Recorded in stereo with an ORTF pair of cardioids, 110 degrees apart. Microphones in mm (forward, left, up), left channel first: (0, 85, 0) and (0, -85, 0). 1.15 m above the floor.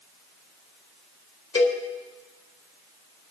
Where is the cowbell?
30° left, 2 m.